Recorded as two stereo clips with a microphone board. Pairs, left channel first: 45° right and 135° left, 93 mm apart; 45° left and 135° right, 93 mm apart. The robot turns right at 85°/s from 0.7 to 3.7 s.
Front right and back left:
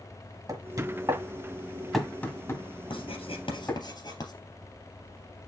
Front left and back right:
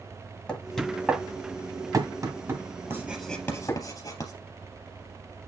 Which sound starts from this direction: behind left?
Knocking, at 0.5 s.